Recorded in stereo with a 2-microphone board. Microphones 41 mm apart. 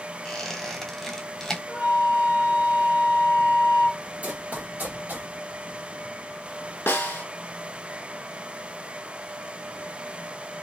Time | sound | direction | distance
0.2 | a squeak | 10° left (ahead or behind) | 0.7 m
1.7 | a flute | 30° right (ahead or behind) | 1.1 m
4.2 | running footsteps | 40° right (ahead or behind) | 1.2 m
6.9 | a snare drum | 65° left (ahead or behind) | 0.6 m